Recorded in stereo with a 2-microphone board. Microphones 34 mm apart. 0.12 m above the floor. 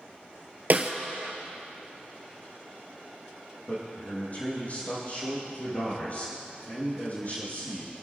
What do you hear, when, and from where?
0.7 s a snare drum: 45° right (ahead or behind), 1.1 m
3.7 s a man speaking: 40° left (ahead or behind), 5 m